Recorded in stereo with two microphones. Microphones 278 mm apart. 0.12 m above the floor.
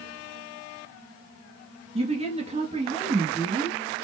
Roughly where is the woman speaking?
Right.